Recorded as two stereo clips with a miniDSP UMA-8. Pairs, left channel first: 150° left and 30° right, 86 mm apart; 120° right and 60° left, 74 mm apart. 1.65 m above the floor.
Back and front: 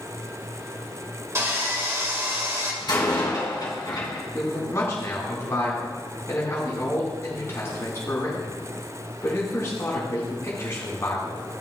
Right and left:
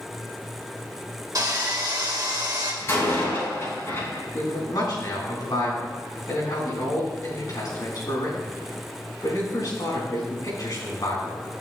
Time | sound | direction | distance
1.4 | sawing | 25° left | 1.7 m
2.8 | a door slam | 175° right | 4.5 m
4.3 | a man speaking | 150° right | 4.5 m